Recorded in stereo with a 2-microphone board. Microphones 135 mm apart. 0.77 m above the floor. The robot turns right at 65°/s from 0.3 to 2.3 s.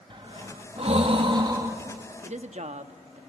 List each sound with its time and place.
0.1 s breathing: 40° right (ahead or behind), 1.2 m; by 1.8 s 15° right (ahead or behind), 1.2 m
2.2 s a woman speaking: 60° right (ahead or behind), 0.9 m; by 3.2 s 55° right (ahead or behind), 0.9 m